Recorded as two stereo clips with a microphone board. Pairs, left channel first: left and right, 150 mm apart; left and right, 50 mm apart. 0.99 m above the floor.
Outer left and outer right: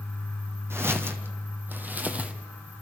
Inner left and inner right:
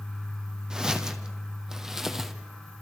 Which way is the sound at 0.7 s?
15° right (ahead or behind).